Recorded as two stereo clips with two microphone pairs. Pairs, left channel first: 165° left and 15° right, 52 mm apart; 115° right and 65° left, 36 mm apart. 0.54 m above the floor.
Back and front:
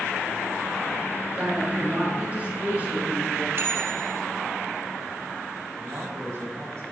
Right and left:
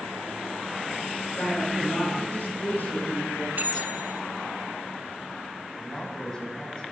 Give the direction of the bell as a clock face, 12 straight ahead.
11 o'clock.